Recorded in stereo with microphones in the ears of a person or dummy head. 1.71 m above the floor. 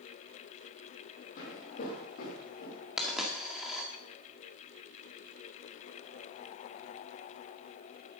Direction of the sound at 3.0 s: Centre (ahead or behind).